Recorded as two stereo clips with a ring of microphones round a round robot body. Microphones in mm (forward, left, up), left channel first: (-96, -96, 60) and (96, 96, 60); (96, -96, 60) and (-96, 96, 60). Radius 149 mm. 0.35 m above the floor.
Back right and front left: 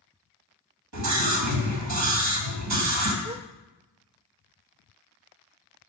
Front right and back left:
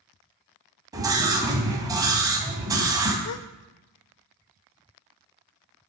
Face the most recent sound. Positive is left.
turn(degrees=-25)